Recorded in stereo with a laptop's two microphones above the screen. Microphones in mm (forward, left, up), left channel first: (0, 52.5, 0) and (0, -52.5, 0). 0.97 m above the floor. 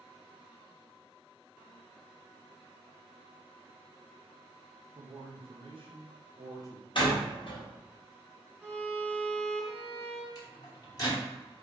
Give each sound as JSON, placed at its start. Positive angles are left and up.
{"t": 5.0, "sound": "a man speaking", "side_deg": -65, "distance_m": 1.4}
{"t": 7.0, "sound": "a door slam", "side_deg": 50, "distance_m": 0.9}
{"t": 8.6, "sound": "a violin", "side_deg": 5, "distance_m": 0.9}
{"t": 10.3, "sound": "a microwave", "side_deg": 35, "distance_m": 0.9}